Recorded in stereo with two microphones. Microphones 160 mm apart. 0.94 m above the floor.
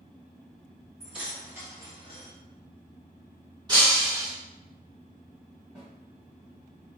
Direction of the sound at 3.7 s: 25° right (ahead or behind).